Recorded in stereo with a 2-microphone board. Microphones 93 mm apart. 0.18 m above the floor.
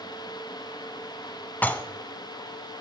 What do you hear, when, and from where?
1.6 s dishes clattering: 20° left (ahead or behind), 0.9 m